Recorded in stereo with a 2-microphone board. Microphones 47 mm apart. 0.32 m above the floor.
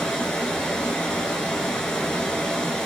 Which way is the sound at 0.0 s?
15° left (ahead or behind).